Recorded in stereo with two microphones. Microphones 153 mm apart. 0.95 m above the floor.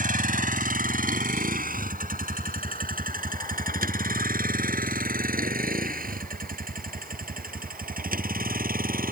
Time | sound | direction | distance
0.0 | a vehicle | 65° right (ahead or behind) | ?